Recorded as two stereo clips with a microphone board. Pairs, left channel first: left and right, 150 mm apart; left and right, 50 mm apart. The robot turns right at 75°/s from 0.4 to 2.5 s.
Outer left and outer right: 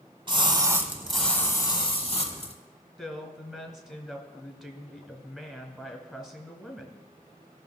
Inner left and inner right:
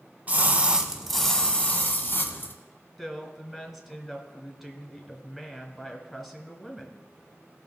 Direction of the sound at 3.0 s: 5° right (ahead or behind).